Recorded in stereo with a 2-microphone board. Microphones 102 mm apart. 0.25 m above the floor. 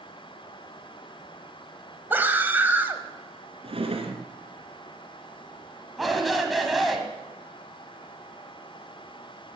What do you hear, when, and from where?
2.1 s a scream: 20° right (ahead or behind), 1.1 m
3.6 s a drawer: 70° right (ahead or behind), 1.6 m
6.0 s a shout: centre (ahead or behind), 1.8 m